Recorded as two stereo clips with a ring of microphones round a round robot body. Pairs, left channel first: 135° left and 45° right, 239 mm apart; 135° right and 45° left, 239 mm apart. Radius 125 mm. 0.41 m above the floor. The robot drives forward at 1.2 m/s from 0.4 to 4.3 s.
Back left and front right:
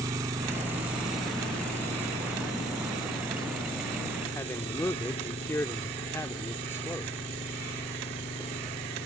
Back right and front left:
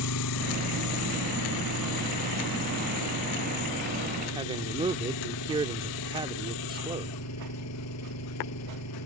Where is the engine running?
120° right; by 9.1 s 155° right.